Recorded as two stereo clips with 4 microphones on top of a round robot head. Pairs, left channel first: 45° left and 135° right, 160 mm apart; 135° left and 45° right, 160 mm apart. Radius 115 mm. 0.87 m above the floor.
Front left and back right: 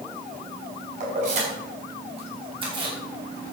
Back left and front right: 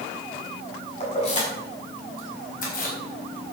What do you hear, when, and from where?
1.0 s keys jangling: 175° right, 5.5 m; by 3.5 s 160° left, 4 m